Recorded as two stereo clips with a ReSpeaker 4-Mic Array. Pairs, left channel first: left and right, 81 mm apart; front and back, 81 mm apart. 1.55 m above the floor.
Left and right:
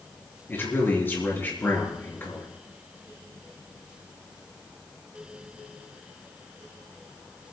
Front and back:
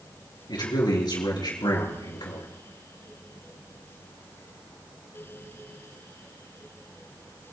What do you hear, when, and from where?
0.5 s a man speaking: 25° left, 4 m